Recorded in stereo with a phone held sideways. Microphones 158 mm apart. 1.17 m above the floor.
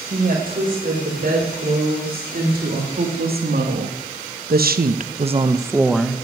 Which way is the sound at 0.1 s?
60° right (ahead or behind).